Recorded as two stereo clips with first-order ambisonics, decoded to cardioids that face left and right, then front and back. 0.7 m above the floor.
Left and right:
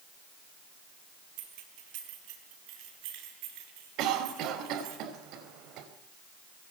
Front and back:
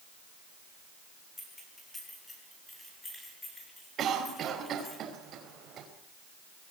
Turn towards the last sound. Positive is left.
turn(degrees=-125)